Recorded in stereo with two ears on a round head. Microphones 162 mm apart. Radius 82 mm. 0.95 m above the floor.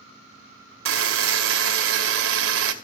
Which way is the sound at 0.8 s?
80° right.